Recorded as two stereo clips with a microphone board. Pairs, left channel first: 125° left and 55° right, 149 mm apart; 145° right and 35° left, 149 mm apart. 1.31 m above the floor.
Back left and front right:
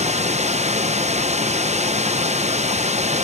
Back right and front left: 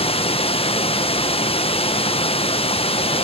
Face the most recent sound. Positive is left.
turn(degrees=-95)